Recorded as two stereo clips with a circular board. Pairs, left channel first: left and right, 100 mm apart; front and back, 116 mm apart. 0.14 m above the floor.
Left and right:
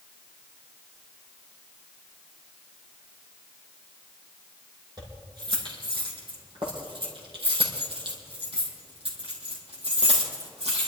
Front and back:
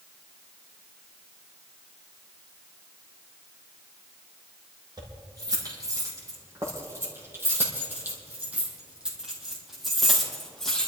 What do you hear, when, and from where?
5.0 s keys jangling: 130° right, 4.5 m; by 10.9 s 85° right, 4 m